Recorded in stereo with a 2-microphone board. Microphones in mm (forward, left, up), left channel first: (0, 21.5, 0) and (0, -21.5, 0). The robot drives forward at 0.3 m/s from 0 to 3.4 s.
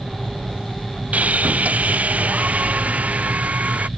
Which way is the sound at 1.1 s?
35° right (ahead or behind).